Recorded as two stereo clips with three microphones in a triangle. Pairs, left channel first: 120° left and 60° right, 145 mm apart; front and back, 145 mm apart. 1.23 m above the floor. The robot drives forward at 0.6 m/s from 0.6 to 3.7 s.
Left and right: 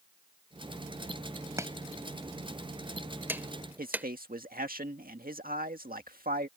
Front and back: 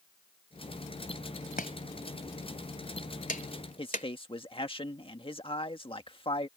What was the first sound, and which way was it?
Chopping, 10° left.